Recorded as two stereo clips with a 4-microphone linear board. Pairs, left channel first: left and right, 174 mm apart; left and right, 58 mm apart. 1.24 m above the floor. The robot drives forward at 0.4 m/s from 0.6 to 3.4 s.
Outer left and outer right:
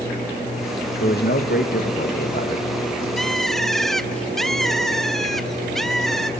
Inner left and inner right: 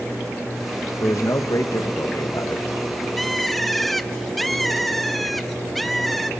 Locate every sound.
1.0 s a man speaking: 75° left (ahead or behind), 1.5 m; by 2.7 s 60° left (ahead or behind), 1.8 m
3.2 s a bird: centre (ahead or behind), 0.7 m